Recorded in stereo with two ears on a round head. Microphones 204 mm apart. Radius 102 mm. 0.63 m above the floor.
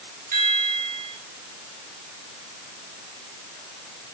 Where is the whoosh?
I don't hear a whoosh.